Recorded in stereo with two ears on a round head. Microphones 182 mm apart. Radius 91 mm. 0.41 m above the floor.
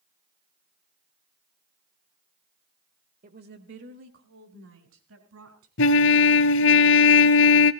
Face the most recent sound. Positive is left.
turn(degrees=65)  # may be behind; listen again after turning